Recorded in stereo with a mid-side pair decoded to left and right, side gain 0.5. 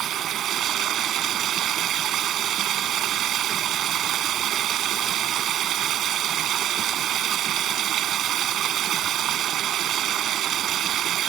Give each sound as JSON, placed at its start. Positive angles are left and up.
{"t": 0.0, "sound": "running water", "azimuth_deg": -60}